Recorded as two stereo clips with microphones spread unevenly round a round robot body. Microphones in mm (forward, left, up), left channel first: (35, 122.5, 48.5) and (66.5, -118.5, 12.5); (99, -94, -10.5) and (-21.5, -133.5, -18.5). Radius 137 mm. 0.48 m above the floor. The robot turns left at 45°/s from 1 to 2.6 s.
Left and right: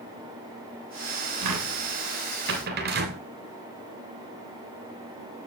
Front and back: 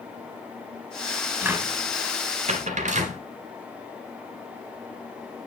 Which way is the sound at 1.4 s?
85° right.